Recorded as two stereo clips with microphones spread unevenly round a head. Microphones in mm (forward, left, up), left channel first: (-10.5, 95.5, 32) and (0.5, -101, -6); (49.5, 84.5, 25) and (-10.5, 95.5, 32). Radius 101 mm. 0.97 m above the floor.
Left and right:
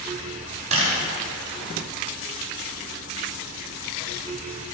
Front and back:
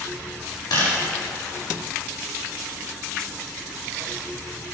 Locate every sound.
0.7 s a camera shutter: 25° right, 6 m